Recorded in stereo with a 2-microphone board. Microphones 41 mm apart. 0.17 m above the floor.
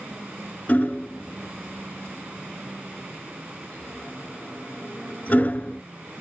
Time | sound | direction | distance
0.7 | hammering | 35° left (ahead or behind) | 0.8 m